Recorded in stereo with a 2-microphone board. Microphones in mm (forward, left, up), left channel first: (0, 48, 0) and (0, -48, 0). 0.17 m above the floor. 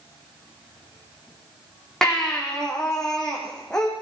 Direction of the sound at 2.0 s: 5° left (ahead or behind).